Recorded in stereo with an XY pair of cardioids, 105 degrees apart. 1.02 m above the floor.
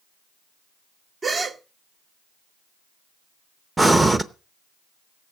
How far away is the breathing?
About 0.8 m.